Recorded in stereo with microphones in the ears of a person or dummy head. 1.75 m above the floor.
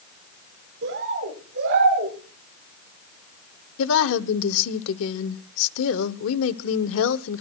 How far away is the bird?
About 8 m.